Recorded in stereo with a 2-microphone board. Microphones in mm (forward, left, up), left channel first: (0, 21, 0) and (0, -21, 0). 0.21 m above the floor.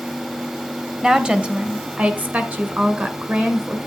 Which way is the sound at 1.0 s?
20° right (ahead or behind).